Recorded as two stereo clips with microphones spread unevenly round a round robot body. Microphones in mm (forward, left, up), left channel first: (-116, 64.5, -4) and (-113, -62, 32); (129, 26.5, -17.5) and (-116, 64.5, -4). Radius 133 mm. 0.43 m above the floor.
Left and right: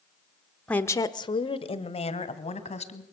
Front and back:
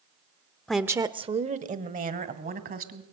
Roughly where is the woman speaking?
Left.